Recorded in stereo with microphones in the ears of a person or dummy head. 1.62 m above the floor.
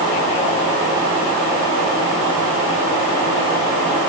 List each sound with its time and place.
Only background noise.